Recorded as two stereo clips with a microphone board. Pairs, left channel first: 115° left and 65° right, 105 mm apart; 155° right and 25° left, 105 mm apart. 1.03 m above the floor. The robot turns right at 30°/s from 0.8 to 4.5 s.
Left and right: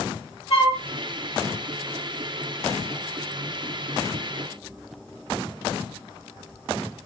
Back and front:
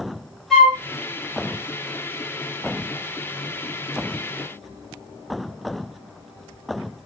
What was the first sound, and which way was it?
A flute, 115° left.